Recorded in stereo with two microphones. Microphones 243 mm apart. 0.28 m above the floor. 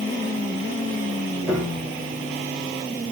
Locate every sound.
1.5 s a piano: centre (ahead or behind), 4 m